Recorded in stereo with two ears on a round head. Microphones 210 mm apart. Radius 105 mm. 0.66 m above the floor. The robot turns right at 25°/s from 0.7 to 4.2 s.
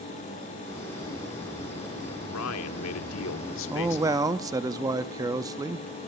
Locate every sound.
2.3 s a man speaking: 80° left, 1.4 m; by 4.5 s 130° left, 1.4 m
3.7 s a man speaking: 10° right (ahead or behind), 0.7 m; by 5.9 s 15° right (ahead or behind), 0.7 m